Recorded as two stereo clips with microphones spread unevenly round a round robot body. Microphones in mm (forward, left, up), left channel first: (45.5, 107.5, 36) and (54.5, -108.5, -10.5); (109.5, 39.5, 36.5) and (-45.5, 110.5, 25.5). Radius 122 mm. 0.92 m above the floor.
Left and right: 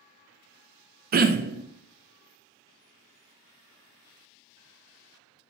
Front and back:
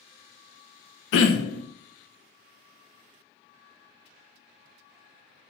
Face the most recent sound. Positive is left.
turn(degrees=-40)